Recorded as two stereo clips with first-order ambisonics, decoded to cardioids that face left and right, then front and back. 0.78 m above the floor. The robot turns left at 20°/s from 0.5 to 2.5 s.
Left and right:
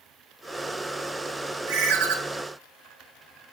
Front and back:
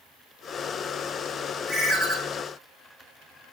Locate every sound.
1.7 s a ringtone: 105° right, 0.8 m; by 2.2 s 115° right, 0.8 m